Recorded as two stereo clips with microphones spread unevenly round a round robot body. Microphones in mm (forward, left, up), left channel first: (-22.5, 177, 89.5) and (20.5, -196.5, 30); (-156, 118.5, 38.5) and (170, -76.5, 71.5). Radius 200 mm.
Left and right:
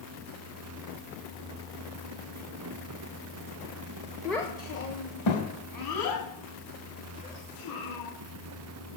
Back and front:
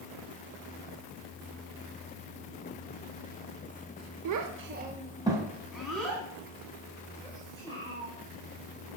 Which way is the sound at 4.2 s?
5° right.